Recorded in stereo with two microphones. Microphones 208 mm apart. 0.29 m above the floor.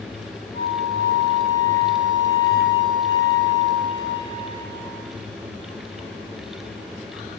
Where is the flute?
20° left (ahead or behind), 1.3 m.